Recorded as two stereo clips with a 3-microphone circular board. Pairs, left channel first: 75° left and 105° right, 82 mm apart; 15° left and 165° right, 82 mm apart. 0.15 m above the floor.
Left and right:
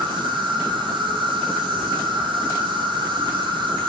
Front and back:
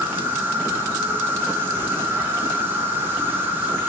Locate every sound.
0.0 s an insect: 100° right, 0.7 m